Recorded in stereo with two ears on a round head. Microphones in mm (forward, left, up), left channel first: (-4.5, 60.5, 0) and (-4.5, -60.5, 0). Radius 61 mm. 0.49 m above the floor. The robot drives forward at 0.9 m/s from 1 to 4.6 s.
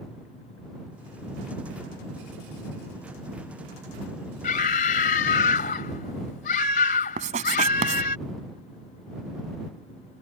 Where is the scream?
60° left (ahead or behind).